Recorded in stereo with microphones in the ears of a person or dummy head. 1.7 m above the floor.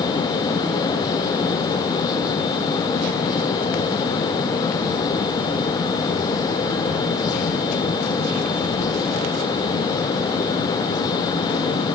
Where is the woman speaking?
No woman speaking in this recording.